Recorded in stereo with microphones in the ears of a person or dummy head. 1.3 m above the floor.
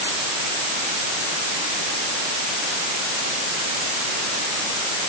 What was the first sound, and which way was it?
Only background noise.